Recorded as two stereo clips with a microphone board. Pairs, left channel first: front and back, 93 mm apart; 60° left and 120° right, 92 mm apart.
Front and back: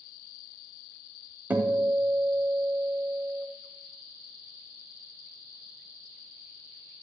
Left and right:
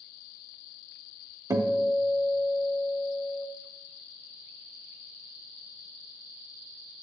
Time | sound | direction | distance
1.5 | a guitar | 120° right | 0.8 m